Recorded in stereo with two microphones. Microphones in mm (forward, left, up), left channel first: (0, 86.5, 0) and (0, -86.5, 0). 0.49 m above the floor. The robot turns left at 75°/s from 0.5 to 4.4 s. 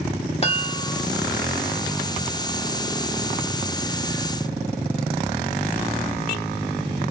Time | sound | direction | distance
0.4 | a chime | 60° left | 1.2 m